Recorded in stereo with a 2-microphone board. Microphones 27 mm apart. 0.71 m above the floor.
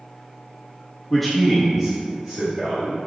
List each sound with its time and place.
1.1 s a man speaking: 5° left (ahead or behind), 1.0 m; by 3.0 s 15° right (ahead or behind), 1.8 m